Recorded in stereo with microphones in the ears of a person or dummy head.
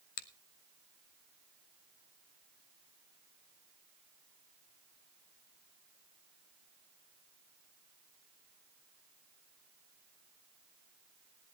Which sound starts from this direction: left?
A finger snap, at 0.2 s.